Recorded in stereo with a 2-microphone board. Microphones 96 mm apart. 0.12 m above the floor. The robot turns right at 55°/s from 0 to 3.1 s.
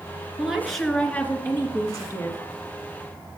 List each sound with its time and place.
0.4 s a woman speaking: 15° right, 1.5 m; by 2.4 s 95° left, 1.5 m